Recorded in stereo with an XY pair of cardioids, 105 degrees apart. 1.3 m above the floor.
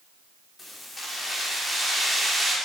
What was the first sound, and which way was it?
Keys jangling, 25° left.